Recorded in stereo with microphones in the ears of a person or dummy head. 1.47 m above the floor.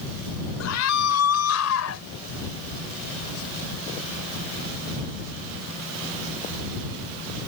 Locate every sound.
0.6 s a scream: 80° left; by 2.1 s 85° left